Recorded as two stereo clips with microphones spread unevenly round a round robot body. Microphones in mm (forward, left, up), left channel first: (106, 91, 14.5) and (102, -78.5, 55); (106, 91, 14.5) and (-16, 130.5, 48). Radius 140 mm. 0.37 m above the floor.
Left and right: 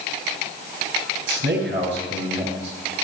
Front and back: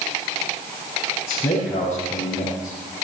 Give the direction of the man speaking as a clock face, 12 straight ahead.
3 o'clock.